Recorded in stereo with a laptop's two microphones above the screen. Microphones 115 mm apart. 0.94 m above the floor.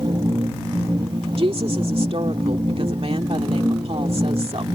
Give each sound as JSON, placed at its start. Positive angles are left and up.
{"t": 0.0, "sound": "a machine running", "side_deg": -40}
{"t": 1.4, "sound": "a woman speaking", "side_deg": -55}